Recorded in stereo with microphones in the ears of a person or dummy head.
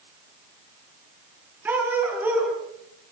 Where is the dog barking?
10° right (ahead or behind), 7 m.